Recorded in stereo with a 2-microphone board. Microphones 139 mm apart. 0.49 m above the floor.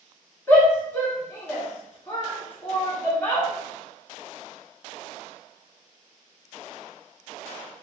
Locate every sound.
0.5 s a shout: 15° left (ahead or behind), 1.3 m